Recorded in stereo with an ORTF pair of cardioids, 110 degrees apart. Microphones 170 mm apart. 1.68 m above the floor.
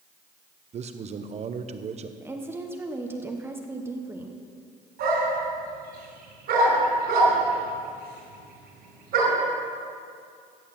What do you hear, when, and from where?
0.7 s a man speaking: 40° right, 1.0 m
2.2 s a woman speaking: 15° right, 1.2 m
5.0 s a dog barking: 70° right, 5 m